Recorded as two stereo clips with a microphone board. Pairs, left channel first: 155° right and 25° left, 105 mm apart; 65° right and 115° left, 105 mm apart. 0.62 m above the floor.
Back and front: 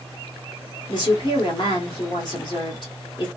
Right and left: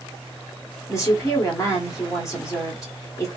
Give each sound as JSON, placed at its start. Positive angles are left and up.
{"t": 0.9, "sound": "a woman speaking", "azimuth_deg": -120, "distance_m": 1.6}